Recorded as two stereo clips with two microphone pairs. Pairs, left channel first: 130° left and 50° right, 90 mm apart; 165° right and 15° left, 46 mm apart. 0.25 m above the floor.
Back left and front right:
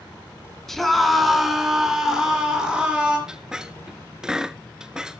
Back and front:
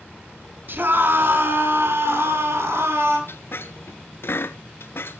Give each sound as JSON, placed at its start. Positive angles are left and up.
{"t": 0.7, "sound": "a scream", "azimuth_deg": 45, "distance_m": 3.0}
{"t": 3.3, "sound": "a squeak", "azimuth_deg": -130, "distance_m": 0.6}